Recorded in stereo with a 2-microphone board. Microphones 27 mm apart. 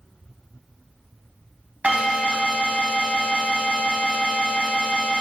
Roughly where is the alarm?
Right.